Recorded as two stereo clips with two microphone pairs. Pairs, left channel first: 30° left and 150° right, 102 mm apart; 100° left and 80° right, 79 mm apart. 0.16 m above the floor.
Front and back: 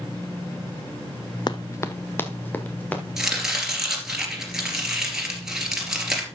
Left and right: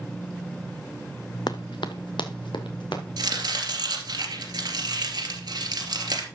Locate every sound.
1.5 s running footsteps: 75° left, 0.5 m; by 3.0 s 105° left, 2.5 m
3.2 s chopping: 65° right, 2.5 m